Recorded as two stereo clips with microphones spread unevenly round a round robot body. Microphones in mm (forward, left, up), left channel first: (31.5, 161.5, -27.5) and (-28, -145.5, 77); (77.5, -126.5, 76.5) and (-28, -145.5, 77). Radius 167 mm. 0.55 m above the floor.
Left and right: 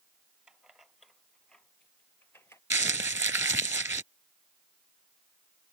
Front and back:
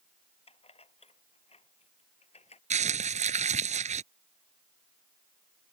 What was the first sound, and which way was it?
Keys jangling, 15° right.